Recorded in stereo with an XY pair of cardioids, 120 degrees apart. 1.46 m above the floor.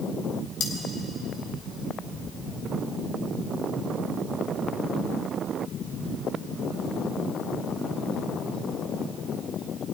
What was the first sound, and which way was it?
Cutlery clinking, 60° left.